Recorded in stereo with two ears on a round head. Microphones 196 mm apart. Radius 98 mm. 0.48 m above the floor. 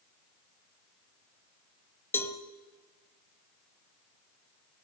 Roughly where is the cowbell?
Centre.